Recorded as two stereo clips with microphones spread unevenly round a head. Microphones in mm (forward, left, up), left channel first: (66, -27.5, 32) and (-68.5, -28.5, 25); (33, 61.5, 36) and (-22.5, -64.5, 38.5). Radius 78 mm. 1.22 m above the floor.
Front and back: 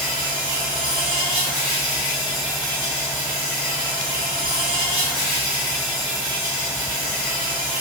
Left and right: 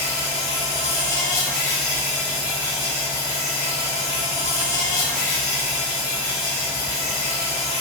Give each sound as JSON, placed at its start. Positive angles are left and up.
{"t": 0.0, "sound": "an insect", "azimuth_deg": 100, "distance_m": 1.7}